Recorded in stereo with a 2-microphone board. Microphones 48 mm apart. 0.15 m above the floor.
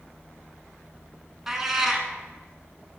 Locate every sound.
1.5 s a cat meowing: 10° right (ahead or behind), 0.7 m